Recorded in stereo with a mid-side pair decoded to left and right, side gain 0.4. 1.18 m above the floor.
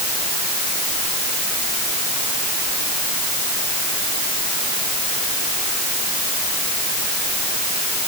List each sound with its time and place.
Only background noise.